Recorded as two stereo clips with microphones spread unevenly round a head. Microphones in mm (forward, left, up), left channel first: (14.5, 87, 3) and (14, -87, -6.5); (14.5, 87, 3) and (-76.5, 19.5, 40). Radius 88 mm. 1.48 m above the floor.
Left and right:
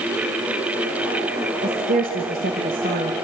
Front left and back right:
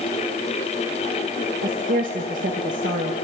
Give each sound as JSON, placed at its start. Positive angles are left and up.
{"t": 1.6, "sound": "a woman speaking", "azimuth_deg": -135, "distance_m": 2.5}